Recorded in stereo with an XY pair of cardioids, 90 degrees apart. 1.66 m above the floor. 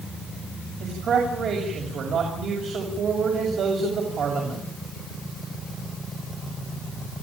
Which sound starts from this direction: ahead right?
A man speaking, at 0.8 s.